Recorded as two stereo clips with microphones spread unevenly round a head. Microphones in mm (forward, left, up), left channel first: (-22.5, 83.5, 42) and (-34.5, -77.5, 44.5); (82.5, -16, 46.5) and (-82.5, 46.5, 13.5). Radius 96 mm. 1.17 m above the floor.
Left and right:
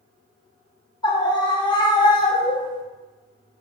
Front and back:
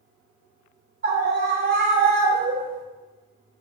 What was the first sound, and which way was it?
A scream, 150° left.